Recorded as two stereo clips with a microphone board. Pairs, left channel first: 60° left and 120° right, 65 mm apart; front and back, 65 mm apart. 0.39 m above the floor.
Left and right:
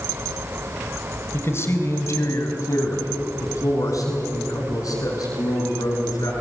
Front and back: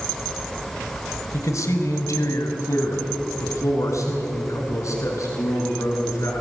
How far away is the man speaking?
About 1.8 m.